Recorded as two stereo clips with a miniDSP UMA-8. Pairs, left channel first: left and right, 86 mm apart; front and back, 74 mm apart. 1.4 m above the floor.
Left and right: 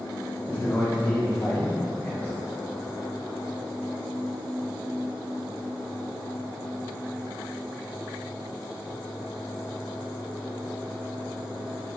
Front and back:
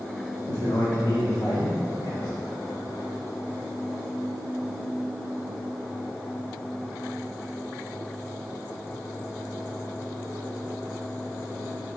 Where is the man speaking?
25° left, 1.7 m; by 2.3 s 45° left, 2.5 m.